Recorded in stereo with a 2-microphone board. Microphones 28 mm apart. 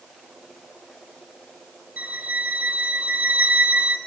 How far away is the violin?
About 3.5 m.